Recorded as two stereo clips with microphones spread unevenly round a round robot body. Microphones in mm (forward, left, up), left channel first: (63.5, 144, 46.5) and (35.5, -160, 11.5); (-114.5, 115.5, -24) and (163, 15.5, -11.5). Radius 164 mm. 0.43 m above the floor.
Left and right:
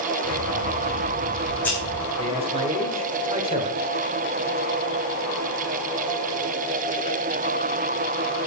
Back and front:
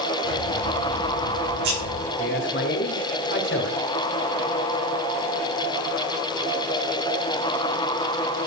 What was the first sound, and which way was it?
Scissors, straight ahead.